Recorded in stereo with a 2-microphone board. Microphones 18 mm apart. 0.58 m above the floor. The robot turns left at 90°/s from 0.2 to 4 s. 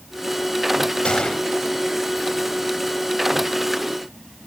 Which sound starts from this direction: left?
A gunshot, at 1.1 s.